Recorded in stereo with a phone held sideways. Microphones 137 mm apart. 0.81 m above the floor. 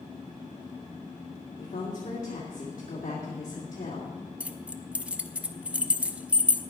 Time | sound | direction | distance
1.6 | a woman speaking | 70° left (ahead or behind) | 2 m
4.4 | keys jangling | 10° right (ahead or behind) | 0.6 m